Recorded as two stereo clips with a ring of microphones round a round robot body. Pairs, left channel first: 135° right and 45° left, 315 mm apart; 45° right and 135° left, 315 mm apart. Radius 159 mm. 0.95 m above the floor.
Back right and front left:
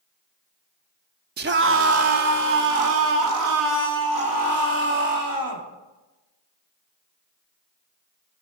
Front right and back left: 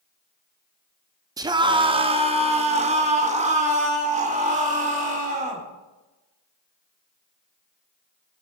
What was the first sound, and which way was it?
A scream, 65° left.